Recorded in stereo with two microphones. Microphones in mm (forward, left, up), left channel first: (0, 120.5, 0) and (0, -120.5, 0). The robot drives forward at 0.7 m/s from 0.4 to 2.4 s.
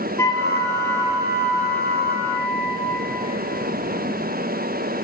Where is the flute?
10° left (ahead or behind), 3.5 m.